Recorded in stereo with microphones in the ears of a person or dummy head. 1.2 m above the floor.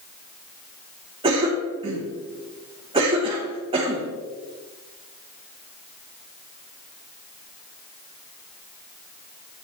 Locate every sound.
1.2 s a cough: 25° right (ahead or behind), 1.1 m